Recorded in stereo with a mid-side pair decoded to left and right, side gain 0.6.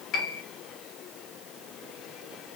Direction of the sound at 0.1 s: 55° left.